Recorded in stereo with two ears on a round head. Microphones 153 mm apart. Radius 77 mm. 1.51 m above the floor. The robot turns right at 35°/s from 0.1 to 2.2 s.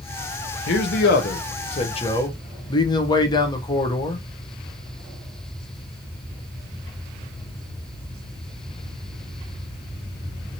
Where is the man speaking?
100° left, 0.8 m; by 4.2 s 155° left, 0.8 m.